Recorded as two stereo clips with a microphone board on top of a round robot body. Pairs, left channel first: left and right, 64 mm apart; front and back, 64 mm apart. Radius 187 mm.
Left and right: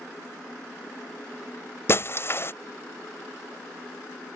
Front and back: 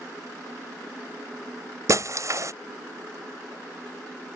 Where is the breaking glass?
140° left.